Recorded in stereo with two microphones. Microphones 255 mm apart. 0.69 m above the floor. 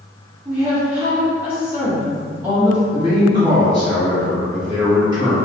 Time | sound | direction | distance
0.5 | a woman speaking | 10° right (ahead or behind) | 0.9 m
2.9 | a man speaking | 25° right (ahead or behind) | 1.1 m